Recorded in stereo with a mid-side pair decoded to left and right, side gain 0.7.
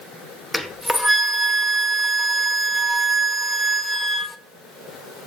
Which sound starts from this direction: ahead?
A flute, at 0.5 s.